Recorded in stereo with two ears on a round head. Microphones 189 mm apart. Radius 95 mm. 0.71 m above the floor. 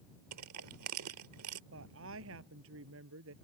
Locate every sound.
0.3 s crushing: 80° right
1.7 s a woman speaking: 70° right (ahead or behind)